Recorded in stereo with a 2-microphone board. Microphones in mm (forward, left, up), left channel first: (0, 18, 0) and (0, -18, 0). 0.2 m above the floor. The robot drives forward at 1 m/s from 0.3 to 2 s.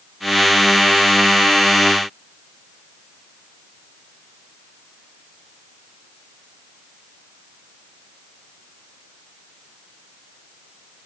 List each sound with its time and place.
Only background noise.